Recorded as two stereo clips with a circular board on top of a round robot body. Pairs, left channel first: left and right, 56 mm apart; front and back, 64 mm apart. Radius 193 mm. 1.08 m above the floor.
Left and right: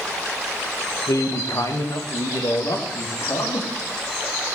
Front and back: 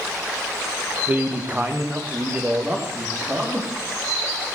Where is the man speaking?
115° left, 1.5 m; by 3.7 s 105° left, 3.5 m.